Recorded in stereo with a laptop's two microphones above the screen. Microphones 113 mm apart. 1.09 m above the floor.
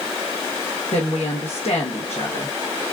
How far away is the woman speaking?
About 1.0 m.